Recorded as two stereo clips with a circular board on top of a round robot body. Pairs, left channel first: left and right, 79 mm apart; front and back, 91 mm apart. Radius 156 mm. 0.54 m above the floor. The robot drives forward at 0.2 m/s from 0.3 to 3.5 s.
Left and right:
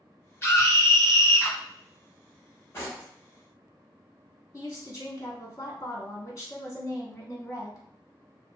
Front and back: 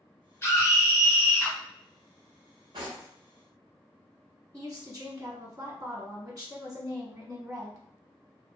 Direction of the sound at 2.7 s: 150° left.